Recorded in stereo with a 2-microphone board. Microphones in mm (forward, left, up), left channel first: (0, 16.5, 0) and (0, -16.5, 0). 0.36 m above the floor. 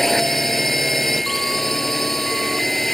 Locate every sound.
0.0 s a drone: 5° left (ahead or behind)